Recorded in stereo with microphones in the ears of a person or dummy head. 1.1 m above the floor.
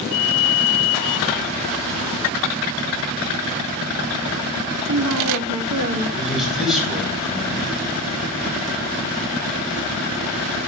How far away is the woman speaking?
About 1.5 m.